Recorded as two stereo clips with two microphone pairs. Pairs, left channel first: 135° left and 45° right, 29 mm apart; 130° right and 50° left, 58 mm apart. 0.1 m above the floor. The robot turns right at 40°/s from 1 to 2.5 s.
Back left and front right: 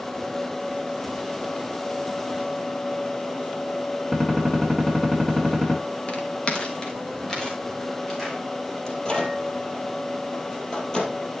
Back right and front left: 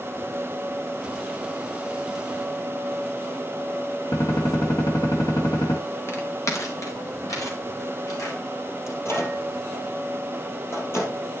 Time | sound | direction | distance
4.1 | a gunshot | 145° right | 3 m
6.1 | footsteps | 175° right | 2.5 m
8.9 | a microwave | 160° right | 2.5 m